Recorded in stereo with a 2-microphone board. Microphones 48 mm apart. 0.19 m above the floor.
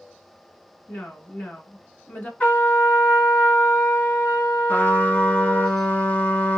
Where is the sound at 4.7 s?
45° left (ahead or behind), 1.3 m.